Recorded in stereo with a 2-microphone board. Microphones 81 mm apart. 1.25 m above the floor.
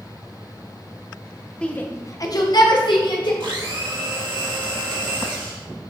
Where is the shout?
15° left (ahead or behind), 1.1 m; by 3.3 s 75° left (ahead or behind), 2.5 m.